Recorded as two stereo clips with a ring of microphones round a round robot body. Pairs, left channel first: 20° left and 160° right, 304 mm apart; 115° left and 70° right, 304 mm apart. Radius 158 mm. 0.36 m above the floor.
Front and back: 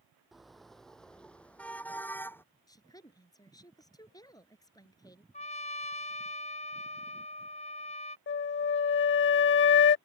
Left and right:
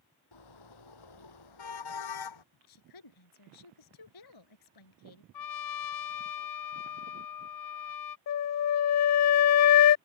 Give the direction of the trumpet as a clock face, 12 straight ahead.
9 o'clock.